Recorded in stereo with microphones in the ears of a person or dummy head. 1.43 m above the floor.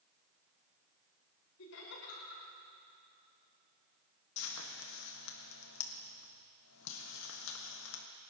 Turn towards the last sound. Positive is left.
turn(degrees=80)